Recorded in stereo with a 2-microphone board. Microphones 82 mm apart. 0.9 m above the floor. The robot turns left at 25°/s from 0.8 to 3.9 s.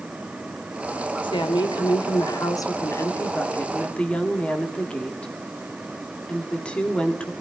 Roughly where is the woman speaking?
Left.